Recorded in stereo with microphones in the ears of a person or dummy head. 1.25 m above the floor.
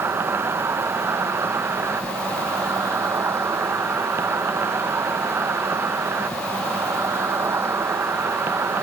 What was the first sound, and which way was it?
An insect, 15° right (ahead or behind).